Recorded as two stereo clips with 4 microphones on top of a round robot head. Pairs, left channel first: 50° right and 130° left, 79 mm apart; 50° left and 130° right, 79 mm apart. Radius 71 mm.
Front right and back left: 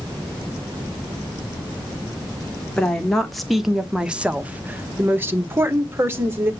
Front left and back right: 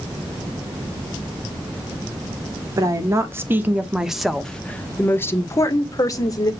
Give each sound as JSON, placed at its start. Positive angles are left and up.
{"t": 2.8, "sound": "a woman speaking", "azimuth_deg": -125, "distance_m": 1.5}